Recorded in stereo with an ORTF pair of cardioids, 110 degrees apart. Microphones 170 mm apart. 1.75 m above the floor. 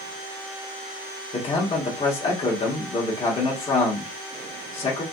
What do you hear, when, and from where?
1.3 s a man speaking: 35° left, 1.7 m